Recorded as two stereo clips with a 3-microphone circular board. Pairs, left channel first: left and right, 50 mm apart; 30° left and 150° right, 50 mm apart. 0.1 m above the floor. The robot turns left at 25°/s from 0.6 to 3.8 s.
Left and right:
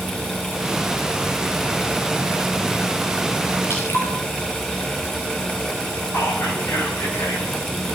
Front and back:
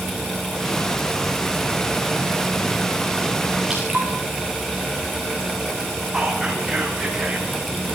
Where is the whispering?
125° left, 8 m.